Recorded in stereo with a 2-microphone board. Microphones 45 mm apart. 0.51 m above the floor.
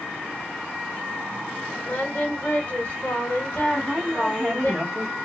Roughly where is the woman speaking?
Centre.